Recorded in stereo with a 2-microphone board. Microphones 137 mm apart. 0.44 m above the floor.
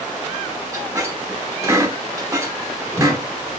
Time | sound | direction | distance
0.7 | a squeak | 20° right (ahead or behind) | 0.8 m